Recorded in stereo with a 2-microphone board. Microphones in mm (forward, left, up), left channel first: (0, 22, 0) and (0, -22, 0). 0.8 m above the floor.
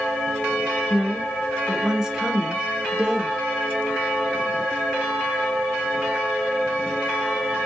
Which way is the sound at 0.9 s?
5° right (ahead or behind).